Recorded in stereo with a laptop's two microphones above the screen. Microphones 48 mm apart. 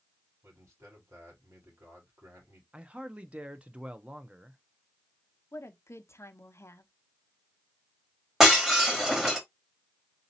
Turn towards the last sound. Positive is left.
turn(degrees=-10)  # may be behind; listen again after turning